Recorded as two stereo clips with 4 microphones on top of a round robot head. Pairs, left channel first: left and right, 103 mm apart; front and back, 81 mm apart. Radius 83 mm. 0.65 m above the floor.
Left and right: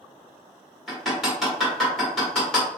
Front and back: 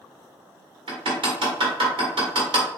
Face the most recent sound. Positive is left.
turn(degrees=180)